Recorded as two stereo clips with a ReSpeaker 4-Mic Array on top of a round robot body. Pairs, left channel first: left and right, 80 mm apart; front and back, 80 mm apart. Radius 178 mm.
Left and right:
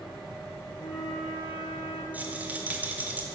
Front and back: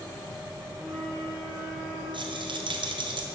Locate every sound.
0.8 s a flute: 75° left, 2.5 m
2.1 s a rattle: 160° right, 1.1 m